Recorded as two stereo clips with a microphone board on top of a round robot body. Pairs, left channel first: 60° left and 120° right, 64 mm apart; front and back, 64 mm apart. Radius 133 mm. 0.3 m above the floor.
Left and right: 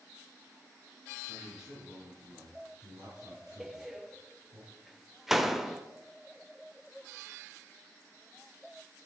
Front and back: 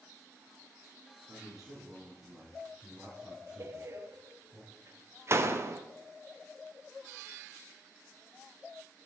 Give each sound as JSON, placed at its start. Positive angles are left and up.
{"t": 1.3, "sound": "a man speaking", "azimuth_deg": -150, "distance_m": 4.5}
{"t": 3.6, "sound": "a door slam", "azimuth_deg": 155, "distance_m": 1.1}